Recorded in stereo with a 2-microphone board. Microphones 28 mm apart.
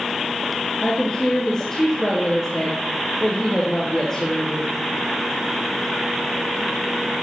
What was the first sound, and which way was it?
A woman speaking, 40° left (ahead or behind).